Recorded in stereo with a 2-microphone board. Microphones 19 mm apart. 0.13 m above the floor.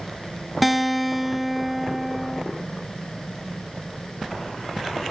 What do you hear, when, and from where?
0.6 s a guitar: centre (ahead or behind), 0.5 m